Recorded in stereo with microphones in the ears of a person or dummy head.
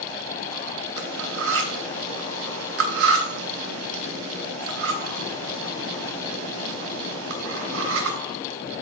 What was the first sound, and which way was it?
Cutlery clinking, 55° right (ahead or behind).